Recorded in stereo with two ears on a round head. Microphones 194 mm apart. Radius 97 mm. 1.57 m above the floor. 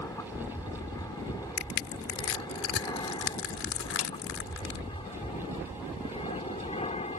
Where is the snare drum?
75° left (ahead or behind).